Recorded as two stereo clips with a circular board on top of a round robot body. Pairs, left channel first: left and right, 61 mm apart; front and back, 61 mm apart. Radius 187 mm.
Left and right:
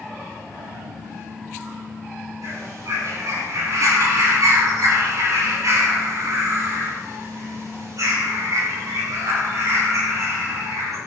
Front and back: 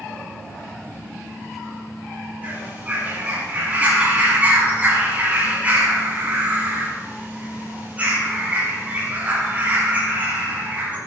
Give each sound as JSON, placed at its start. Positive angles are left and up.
{"t": 2.4, "sound": "a bird", "azimuth_deg": -115, "distance_m": 8.5}